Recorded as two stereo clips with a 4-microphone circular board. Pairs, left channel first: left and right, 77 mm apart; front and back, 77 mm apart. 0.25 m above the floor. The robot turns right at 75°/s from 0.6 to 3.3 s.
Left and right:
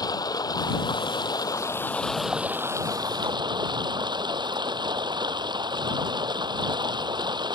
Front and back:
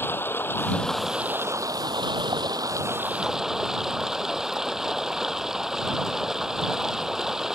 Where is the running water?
60° left; by 7.5 s 100° right.